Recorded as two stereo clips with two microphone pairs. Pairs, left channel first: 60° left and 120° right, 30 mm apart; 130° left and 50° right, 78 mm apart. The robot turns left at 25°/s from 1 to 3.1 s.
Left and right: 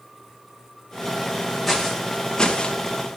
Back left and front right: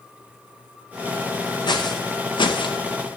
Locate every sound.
1.7 s footsteps: 150° left, 1.9 m; by 2.8 s 115° left, 1.3 m